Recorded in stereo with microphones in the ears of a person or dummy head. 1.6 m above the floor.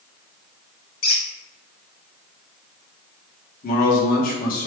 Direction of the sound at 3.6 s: 55° left (ahead or behind).